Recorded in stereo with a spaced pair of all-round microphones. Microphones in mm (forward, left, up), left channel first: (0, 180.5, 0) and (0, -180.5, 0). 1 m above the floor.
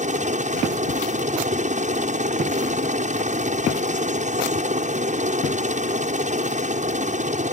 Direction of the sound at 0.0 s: 20° right (ahead or behind).